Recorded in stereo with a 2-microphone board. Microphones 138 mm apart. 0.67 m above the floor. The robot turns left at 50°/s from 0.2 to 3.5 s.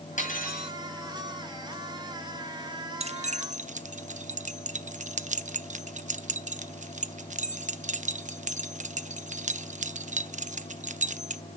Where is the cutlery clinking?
60° left (ahead or behind), 7 m; by 0.7 s 85° left, 7 m.